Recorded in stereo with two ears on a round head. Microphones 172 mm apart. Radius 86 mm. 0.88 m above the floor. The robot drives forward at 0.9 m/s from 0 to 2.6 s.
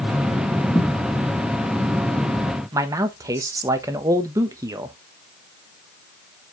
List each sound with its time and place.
0.7 s a thud: 15° left (ahead or behind), 2.5 m
2.7 s a man speaking: 15° right (ahead or behind), 1.0 m